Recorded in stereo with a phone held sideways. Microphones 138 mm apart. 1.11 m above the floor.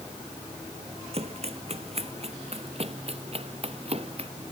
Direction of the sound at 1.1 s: 50° right (ahead or behind).